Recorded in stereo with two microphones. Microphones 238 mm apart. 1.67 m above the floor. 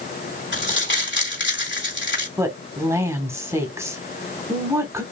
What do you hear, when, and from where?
0.5 s crumpling: 50° left (ahead or behind), 3 m
2.4 s a woman speaking: 10° right (ahead or behind), 1.8 m